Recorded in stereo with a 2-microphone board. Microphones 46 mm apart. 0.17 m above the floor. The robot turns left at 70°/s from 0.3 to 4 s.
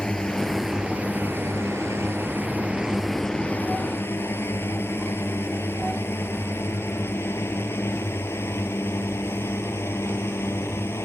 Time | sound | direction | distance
0.0 | a drone | 20° left (ahead or behind) | ?